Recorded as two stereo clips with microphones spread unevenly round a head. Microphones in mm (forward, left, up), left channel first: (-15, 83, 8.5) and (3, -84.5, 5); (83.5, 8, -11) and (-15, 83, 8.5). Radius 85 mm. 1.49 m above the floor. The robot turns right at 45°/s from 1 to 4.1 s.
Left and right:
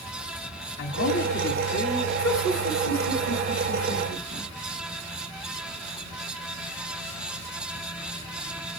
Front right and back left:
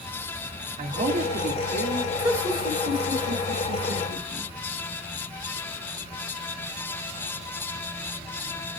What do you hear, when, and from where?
0.8 s a man speaking: 110° left, 0.9 m; by 2.1 s 160° left, 0.9 m
2.2 s laughter: 70° left, 2.5 m; by 4.5 s 155° left, 2.5 m